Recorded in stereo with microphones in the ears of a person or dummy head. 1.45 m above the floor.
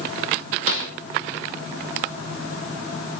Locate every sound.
0.7 s a snare drum: 75° right (ahead or behind), 2.5 m